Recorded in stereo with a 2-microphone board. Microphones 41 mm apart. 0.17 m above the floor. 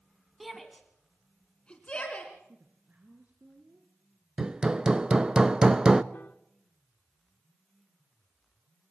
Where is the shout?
5° right (ahead or behind), 1.7 m; by 2.3 s 30° left (ahead or behind), 2.5 m.